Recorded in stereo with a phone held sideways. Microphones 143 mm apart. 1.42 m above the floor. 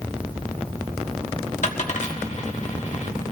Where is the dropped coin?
55° left (ahead or behind), 1.4 m.